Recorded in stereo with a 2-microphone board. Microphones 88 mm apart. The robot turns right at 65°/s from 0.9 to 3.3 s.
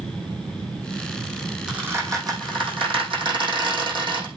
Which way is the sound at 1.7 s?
10° right (ahead or behind).